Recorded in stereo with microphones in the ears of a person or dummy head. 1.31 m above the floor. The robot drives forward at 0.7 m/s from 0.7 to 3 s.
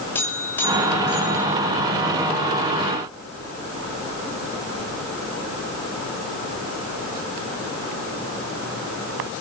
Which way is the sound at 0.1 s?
15° left (ahead or behind).